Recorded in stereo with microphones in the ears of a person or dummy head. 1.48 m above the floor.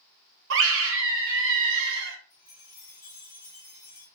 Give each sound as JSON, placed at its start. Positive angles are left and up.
{"t": 0.5, "sound": "a scream", "side_deg": -70, "distance_m": 0.9}
{"t": 2.3, "sound": "a chime", "side_deg": 15, "distance_m": 0.9}